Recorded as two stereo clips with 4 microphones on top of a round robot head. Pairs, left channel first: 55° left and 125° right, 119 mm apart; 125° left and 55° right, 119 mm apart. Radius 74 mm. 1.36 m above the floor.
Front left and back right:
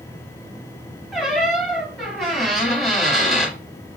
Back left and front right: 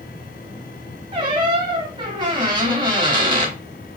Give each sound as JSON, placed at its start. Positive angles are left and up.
{"t": 1.1, "sound": "a squeak", "azimuth_deg": -30, "distance_m": 1.3}